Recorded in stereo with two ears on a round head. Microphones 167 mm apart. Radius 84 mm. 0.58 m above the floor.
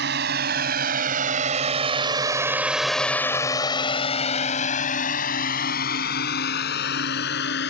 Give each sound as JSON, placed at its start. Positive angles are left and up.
{"t": 0.0, "sound": "a drone", "side_deg": -65}